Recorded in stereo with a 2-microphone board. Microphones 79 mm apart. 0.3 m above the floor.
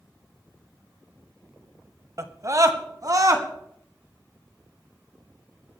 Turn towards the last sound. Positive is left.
turn(degrees=-50)  # may be behind; listen again after turning